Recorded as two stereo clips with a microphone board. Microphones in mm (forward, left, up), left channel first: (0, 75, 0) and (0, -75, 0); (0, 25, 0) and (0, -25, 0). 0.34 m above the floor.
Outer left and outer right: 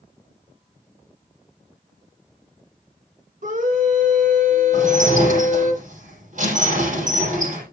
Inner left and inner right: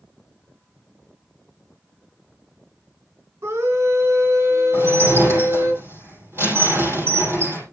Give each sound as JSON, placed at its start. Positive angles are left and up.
{"t": 3.4, "sound": "a scream", "side_deg": -65, "distance_m": 3.0}
{"t": 4.7, "sound": "dishes clattering", "side_deg": -60, "distance_m": 8.5}